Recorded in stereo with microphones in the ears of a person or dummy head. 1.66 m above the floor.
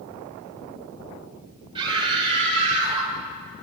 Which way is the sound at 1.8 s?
25° right (ahead or behind).